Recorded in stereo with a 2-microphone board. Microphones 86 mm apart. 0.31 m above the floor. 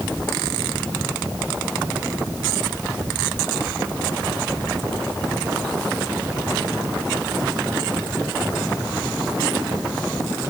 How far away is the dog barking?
No dog barking in this recording.